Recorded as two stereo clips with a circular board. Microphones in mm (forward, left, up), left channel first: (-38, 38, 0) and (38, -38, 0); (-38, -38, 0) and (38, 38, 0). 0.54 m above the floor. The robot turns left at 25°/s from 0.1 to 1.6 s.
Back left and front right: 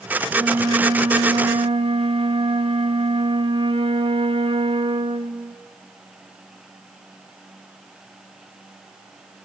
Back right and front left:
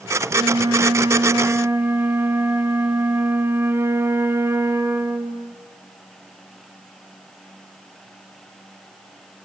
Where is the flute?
15° left, 0.5 m; by 5.6 s 20° right, 0.5 m.